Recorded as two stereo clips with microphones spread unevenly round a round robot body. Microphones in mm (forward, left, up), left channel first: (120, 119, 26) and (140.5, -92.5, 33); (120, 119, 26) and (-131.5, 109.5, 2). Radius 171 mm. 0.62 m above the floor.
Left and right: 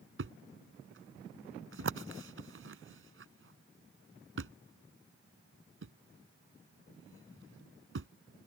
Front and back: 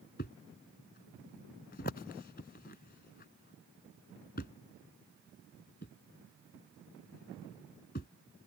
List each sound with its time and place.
0.2 s a thud: 65° right